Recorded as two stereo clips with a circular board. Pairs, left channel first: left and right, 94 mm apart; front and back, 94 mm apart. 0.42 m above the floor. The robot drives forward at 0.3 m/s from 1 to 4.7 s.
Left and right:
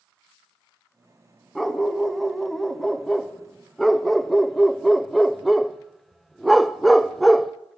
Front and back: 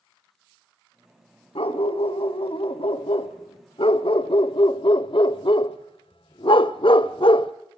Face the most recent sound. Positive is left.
turn(degrees=0)